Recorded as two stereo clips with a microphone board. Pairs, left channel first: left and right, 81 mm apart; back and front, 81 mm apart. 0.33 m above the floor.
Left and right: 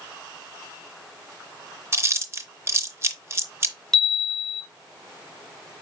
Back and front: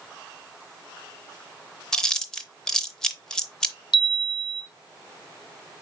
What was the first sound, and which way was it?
Chewing, 105° right.